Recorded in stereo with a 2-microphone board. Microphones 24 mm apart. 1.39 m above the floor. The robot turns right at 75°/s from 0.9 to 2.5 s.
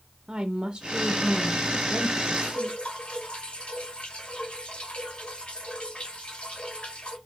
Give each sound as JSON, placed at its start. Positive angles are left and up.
{"t": 0.3, "sound": "a woman speaking", "azimuth_deg": -125, "distance_m": 0.7}
{"t": 2.4, "sound": "dripping", "side_deg": 55, "distance_m": 2.0}